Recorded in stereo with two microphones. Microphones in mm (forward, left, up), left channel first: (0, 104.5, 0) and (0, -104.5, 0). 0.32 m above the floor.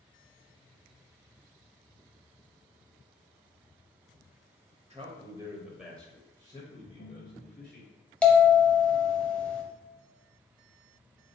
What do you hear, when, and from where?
4.9 s a man speaking: 30° right (ahead or behind), 0.9 m; by 7.8 s 40° left (ahead or behind), 1.5 m
6.8 s a ringtone: 40° left (ahead or behind), 1.3 m
8.2 s a bell: 5° left (ahead or behind), 0.8 m